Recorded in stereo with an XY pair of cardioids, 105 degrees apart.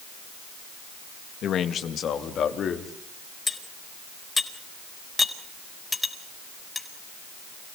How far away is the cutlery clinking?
About 4.5 m.